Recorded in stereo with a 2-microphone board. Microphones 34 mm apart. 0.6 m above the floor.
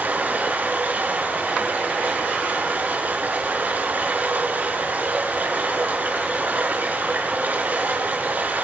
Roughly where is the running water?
Right.